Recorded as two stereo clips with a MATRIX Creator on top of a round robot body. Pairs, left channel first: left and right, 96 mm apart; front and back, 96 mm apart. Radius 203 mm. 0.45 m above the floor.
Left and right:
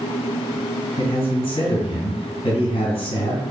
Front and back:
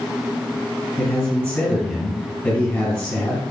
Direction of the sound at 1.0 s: 70° left.